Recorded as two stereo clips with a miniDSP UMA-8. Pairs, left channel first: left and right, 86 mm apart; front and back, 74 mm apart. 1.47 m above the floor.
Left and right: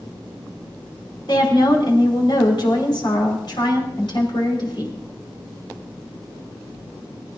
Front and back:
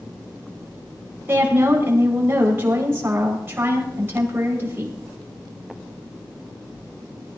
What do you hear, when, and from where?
1.3 s a woman speaking: 120° left, 5 m